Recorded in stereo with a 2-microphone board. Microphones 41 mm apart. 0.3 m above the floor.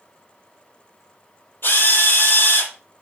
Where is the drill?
60° left (ahead or behind), 6 m.